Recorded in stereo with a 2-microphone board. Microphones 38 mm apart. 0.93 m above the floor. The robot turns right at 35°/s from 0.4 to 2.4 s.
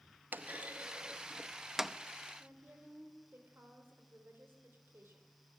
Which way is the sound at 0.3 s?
60° right (ahead or behind).